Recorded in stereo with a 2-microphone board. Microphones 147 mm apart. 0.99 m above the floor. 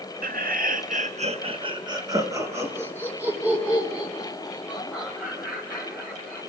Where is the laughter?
70° right (ahead or behind), 1.4 m; by 6.4 s centre (ahead or behind), 7 m.